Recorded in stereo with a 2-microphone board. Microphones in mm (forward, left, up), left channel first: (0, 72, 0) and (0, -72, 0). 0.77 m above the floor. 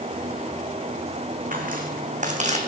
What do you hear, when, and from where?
1.5 s footsteps: 65° right (ahead or behind), 2.5 m; by 2.6 s 50° right (ahead or behind), 2 m